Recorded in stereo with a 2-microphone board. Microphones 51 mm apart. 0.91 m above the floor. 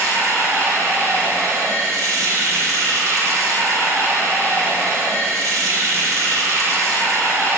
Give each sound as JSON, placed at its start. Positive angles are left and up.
{"t": 0.0, "sound": "running water", "side_deg": -80, "distance_m": 3.0}